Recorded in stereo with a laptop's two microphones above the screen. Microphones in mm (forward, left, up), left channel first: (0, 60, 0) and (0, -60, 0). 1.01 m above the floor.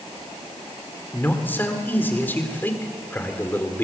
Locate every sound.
1.1 s a man speaking: 15° left (ahead or behind), 3 m